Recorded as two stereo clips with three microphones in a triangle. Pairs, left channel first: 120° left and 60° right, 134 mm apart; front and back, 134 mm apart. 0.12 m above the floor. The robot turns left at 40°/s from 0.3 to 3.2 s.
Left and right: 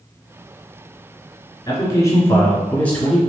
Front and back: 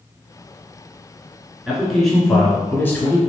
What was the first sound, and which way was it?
A man speaking, 100° left.